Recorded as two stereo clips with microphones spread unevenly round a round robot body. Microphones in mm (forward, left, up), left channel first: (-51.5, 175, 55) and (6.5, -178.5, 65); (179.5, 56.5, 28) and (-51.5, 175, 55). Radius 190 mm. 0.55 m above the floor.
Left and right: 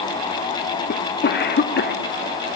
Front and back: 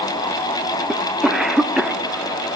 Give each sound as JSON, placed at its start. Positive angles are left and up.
{"t": 0.9, "sound": "a cough", "azimuth_deg": 55, "distance_m": 1.6}